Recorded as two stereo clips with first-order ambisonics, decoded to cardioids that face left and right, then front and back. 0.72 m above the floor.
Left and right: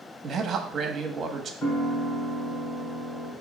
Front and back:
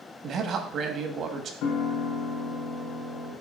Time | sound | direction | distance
0.2 | a man speaking | 145° right | 1.1 m
1.6 | a piano | 20° left | 3 m